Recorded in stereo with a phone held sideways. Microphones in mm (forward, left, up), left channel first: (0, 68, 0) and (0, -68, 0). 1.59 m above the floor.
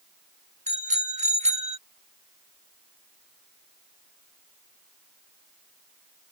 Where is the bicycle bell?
55° right (ahead or behind); by 1.8 s 50° right (ahead or behind).